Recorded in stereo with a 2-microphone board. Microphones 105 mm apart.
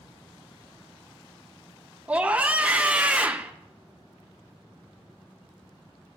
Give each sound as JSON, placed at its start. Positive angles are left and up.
{"t": 2.1, "sound": "a scream", "side_deg": -15, "distance_m": 0.7}